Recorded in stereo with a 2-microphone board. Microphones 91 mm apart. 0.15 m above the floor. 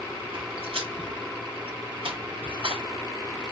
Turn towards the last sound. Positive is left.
turn(degrees=-80)